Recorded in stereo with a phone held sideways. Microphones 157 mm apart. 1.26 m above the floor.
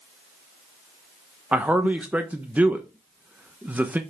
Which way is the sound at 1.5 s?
10° right (ahead or behind).